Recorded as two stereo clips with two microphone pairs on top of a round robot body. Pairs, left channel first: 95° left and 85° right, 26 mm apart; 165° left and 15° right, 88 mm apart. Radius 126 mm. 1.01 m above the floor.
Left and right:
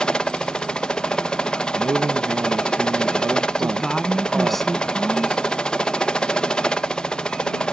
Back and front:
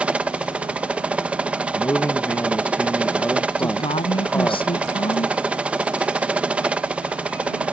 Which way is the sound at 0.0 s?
60° left.